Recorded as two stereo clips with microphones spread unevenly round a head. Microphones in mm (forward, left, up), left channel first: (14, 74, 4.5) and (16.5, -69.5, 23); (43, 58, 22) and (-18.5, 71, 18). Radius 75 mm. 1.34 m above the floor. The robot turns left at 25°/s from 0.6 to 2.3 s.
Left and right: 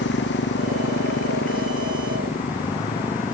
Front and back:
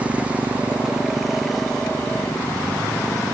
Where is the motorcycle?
100° left; by 3.3 s 60° left.